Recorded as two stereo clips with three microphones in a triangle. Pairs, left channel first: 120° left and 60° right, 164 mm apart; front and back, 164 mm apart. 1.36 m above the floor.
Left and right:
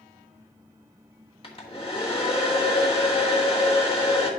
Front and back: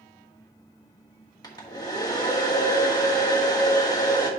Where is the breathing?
I don't hear breathing.